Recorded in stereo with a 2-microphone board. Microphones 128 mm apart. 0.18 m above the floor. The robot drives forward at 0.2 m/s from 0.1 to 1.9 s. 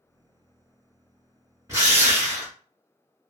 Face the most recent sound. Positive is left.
turn(degrees=-25)  # may be behind; listen again after turning